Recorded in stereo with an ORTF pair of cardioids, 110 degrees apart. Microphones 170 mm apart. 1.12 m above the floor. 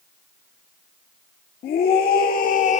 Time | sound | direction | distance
1.6 | a scream | 60° left | 2 m